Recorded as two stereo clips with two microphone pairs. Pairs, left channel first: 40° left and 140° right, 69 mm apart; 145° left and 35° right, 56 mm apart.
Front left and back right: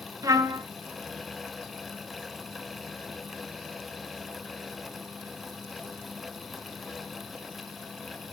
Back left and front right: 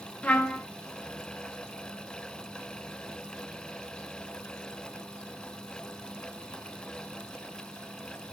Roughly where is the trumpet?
Behind right.